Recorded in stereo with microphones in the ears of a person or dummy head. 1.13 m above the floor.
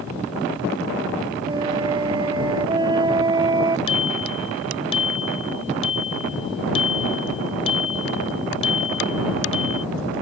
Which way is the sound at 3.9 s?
35° left (ahead or behind).